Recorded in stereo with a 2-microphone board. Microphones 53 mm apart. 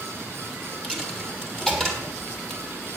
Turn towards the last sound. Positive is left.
turn(degrees=5)  # may be behind; listen again after turning